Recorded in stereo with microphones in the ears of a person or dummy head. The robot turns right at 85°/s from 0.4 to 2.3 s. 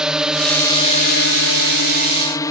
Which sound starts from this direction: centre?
A drone, at 0.0 s.